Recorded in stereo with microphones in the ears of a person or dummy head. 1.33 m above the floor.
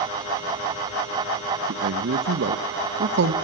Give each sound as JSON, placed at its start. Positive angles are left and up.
{"t": 1.7, "sound": "a man speaking", "side_deg": -60, "distance_m": 1.3}